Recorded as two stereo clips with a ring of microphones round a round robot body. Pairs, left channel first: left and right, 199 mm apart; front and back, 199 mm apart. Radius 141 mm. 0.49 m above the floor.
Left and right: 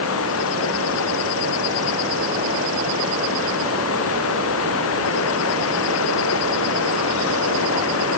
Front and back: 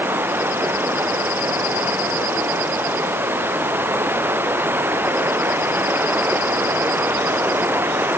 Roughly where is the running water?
Left.